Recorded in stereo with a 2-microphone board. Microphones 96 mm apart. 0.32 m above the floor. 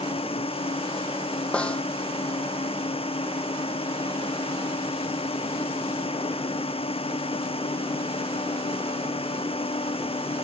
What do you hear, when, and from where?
0.0 s a drone: 85° left
1.5 s a snare drum: 10° left (ahead or behind)